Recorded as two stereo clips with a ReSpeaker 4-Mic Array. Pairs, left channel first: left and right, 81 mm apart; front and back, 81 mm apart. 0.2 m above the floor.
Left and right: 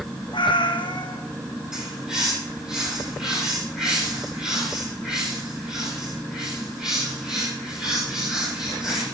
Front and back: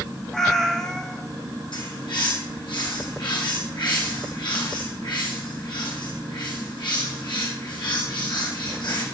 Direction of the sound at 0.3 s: 85° left.